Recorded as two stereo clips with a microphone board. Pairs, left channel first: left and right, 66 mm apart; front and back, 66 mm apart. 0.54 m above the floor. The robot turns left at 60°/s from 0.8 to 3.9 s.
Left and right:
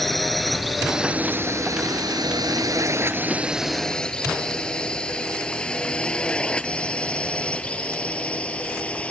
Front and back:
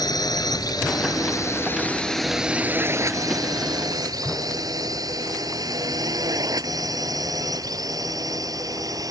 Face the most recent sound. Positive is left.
turn(degrees=160)